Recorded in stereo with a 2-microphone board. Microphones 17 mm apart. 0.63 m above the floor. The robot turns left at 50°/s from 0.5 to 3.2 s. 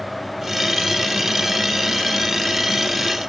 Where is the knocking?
I don't hear knocking.